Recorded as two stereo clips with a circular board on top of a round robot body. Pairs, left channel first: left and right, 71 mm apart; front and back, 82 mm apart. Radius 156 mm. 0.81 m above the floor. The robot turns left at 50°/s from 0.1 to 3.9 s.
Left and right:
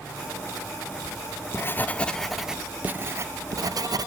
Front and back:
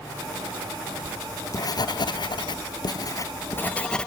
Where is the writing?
65° left, 0.5 m; by 4.1 s 80° right, 0.5 m.